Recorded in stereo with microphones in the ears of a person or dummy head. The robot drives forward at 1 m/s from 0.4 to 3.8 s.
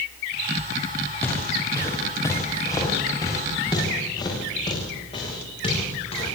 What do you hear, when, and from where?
1.2 s footsteps: 10° left (ahead or behind), 5.5 m; by 6.2 s 30° left (ahead or behind), 10 m